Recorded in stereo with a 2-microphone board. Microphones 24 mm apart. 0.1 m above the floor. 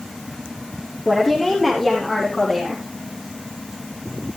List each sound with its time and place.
1.1 s a woman speaking: 10° left (ahead or behind), 3.5 m; by 2.8 s 15° left (ahead or behind), 4 m